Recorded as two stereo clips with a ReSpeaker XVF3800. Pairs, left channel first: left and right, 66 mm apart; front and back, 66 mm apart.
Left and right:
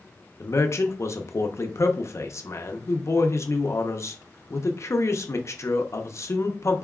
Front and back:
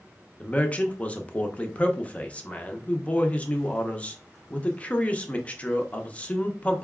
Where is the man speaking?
65° left, 0.7 m.